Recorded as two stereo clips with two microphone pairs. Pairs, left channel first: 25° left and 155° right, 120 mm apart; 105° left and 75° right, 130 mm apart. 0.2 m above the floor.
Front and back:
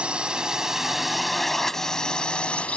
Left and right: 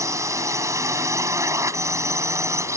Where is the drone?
85° right; by 2.8 s 40° right.